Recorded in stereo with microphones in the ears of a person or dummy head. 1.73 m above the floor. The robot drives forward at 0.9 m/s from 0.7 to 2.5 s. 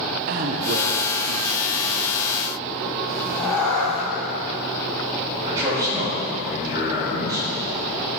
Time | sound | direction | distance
0.3 | a man speaking | 45° right (ahead or behind) | 1.1 m
3.1 | a cat meowing | 5° left (ahead or behind) | 2.5 m
5.4 | a man speaking | 20° right (ahead or behind) | 3.5 m